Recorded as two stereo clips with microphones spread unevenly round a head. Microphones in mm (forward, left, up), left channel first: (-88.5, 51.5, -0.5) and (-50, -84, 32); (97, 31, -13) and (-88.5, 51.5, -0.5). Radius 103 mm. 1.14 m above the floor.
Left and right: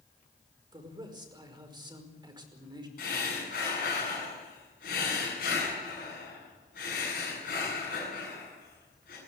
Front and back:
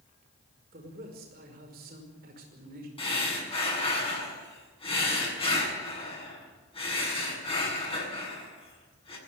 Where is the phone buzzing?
No phone buzzing in this recording.